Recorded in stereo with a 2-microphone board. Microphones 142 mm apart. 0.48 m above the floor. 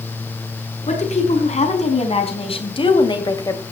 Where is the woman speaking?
55° left (ahead or behind), 5 m; by 3.6 s 20° left (ahead or behind), 2 m.